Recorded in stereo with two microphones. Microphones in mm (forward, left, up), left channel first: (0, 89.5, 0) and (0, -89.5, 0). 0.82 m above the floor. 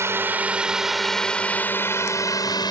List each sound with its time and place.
0.0 s a drone: 15° right (ahead or behind); by 2.7 s 25° left (ahead or behind)